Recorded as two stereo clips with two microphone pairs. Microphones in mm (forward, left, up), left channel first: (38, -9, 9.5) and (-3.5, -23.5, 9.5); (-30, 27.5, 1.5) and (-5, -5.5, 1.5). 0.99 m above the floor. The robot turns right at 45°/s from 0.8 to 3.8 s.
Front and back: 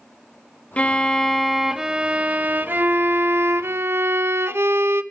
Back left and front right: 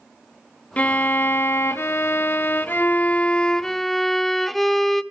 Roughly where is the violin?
Left.